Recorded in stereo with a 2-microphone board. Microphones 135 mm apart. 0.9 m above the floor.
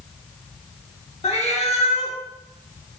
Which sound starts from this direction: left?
A cat meowing, at 1.2 s.